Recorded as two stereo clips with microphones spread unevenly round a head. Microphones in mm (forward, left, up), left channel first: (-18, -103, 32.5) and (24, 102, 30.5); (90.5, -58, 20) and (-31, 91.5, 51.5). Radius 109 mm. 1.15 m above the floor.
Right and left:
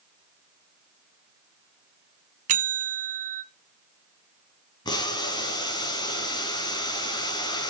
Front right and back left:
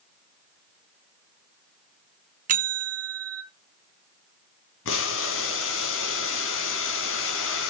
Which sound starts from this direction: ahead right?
Boiling, at 4.8 s.